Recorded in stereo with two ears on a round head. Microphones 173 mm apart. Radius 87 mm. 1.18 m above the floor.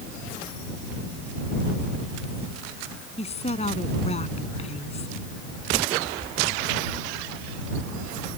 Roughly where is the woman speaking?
Left.